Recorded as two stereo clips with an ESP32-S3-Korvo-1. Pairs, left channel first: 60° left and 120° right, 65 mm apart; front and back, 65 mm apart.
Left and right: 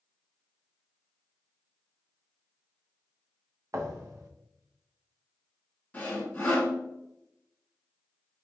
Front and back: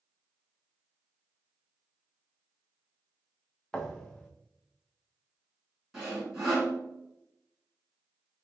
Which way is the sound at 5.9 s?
100° left.